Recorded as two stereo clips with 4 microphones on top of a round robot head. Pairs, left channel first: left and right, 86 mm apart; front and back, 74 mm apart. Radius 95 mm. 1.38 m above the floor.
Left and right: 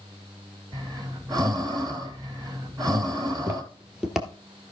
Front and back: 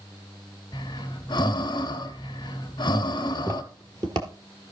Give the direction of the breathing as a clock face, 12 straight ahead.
1 o'clock.